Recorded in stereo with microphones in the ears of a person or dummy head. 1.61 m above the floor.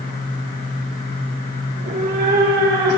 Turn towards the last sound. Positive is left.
turn(degrees=-55)  # may be behind; listen again after turning